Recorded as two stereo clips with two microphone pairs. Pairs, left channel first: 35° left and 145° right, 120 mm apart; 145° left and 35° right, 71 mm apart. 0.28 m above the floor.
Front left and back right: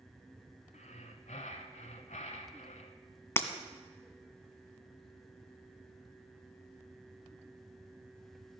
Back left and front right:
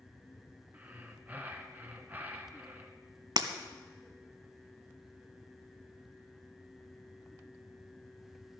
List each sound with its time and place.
0.7 s breathing: 30° left, 1.0 m
3.4 s breaking glass: 35° right, 0.8 m